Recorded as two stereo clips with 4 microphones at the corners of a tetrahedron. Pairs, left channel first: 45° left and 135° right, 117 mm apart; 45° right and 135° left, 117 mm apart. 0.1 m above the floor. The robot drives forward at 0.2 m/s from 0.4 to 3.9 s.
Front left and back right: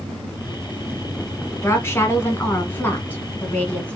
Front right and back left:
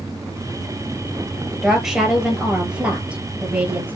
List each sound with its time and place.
1.5 s a woman speaking: 55° left, 1.7 m; by 4.0 s 95° left, 1.6 m